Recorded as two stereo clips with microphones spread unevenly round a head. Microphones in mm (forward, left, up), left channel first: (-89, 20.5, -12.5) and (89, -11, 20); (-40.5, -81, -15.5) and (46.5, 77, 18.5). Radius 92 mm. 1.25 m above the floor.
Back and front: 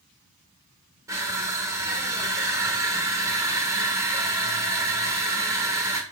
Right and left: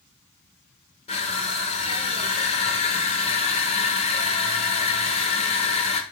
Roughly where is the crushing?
Ahead right.